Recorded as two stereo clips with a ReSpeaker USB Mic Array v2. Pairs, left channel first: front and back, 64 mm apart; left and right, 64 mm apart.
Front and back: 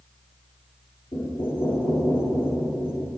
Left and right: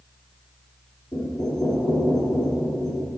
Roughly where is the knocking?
Ahead.